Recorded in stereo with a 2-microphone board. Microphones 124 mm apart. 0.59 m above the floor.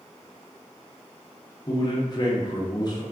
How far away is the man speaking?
About 0.7 m.